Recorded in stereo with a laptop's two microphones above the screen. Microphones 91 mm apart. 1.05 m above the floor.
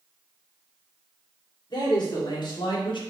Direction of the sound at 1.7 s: 50° left (ahead or behind).